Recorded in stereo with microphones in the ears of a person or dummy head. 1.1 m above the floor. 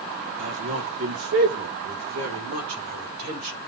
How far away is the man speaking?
About 3 m.